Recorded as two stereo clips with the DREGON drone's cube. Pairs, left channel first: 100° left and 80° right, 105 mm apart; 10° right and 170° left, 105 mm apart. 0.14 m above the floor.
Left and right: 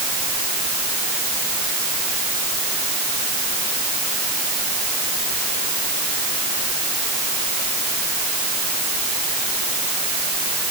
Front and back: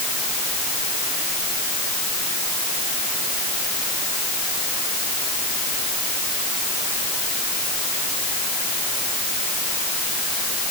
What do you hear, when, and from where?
Only background noise.